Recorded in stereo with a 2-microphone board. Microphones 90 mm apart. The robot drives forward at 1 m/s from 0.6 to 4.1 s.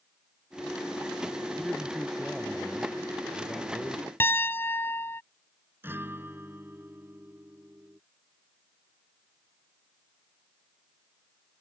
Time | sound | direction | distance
1.6 | a man speaking | centre (ahead or behind) | ?
4.2 | a piano | 25° left (ahead or behind) | ?
5.8 | a guitar | 25° right (ahead or behind) | ?